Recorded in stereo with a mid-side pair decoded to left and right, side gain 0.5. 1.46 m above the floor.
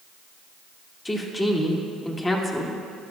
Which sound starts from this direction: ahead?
A woman speaking, at 1.1 s.